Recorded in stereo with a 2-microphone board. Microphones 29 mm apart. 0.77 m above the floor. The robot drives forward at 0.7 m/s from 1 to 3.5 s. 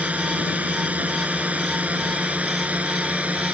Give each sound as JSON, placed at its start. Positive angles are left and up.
{"t": 0.0, "sound": "a drone", "side_deg": -60}